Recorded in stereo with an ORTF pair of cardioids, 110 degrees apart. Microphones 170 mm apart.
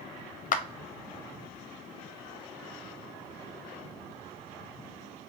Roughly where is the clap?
Ahead left.